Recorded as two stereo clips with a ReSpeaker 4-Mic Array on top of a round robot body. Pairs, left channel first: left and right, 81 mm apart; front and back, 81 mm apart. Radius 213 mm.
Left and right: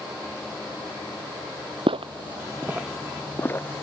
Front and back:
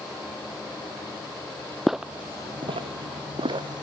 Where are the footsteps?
90° right; by 3.8 s 150° left.